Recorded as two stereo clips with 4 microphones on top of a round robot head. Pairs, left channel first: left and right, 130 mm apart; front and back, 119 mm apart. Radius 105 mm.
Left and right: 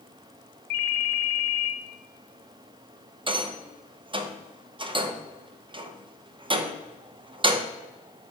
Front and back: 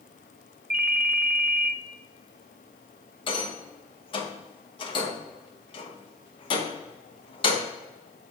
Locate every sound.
0.7 s a ringtone: 110° left, 0.9 m
3.3 s a rattle: 40° right, 0.9 m